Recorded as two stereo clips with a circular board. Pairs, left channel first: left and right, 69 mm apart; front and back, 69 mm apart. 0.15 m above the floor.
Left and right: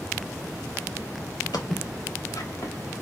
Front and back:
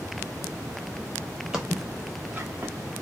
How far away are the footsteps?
About 1.1 m.